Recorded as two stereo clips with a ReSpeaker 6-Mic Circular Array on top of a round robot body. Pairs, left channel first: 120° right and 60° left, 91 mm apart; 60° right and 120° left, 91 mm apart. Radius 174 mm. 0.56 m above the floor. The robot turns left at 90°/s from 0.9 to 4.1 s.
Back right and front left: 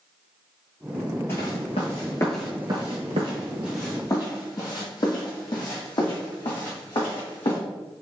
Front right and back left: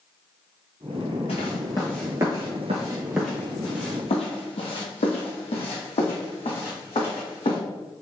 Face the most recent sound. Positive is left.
turn(degrees=-85)